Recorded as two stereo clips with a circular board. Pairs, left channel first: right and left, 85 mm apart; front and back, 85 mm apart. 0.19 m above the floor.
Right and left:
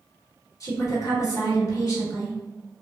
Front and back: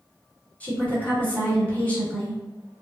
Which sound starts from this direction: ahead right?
A woman speaking, at 0.6 s.